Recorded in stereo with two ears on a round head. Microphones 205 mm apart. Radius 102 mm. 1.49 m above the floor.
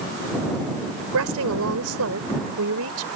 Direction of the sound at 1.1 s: 75° right (ahead or behind).